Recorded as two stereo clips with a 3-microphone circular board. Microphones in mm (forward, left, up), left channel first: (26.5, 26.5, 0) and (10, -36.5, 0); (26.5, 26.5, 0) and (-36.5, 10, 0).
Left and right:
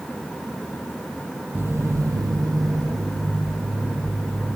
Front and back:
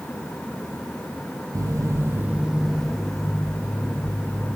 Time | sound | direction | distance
1.6 | footsteps | 160° right | 0.6 m